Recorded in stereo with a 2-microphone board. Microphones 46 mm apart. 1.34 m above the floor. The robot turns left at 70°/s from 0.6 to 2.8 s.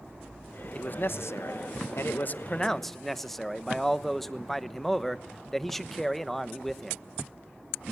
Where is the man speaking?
150° left, 1.0 m; by 7.0 s 5° left, 1.0 m.